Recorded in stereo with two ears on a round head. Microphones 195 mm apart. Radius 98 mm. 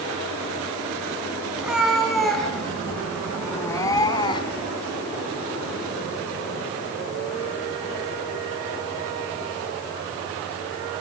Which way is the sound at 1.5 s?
5° right (ahead or behind).